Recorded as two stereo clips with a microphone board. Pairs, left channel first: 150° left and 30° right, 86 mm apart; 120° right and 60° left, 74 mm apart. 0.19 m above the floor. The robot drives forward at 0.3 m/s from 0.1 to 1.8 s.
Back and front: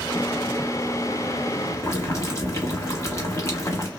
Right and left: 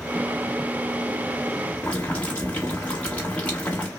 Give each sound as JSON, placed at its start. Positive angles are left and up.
{"t": 1.8, "sound": "boiling", "azimuth_deg": 175, "distance_m": 1.0}